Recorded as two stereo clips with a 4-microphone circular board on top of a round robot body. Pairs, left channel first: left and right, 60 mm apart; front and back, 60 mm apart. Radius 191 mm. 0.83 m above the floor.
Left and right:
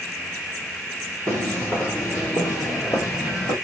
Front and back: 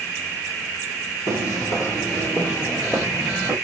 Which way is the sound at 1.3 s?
15° right.